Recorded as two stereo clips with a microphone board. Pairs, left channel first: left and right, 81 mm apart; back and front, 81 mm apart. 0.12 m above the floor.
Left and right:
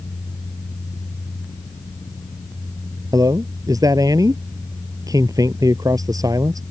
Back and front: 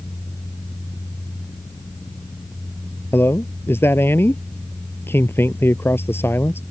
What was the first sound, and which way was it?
A man speaking, 120° right.